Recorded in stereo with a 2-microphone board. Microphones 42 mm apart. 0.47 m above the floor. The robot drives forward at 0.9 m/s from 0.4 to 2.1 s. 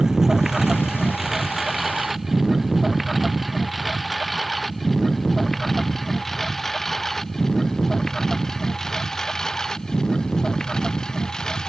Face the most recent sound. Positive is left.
turn(degrees=15)  # may be behind; listen again after turning